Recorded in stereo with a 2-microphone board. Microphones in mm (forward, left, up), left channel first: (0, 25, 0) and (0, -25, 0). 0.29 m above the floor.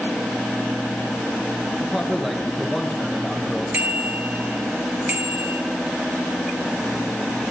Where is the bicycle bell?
35° right (ahead or behind), 3.5 m.